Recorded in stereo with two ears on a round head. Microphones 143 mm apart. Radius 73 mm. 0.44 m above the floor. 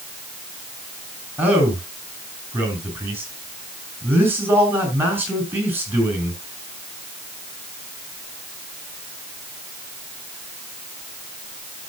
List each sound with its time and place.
1.4 s a man speaking: 15° right (ahead or behind), 6.5 m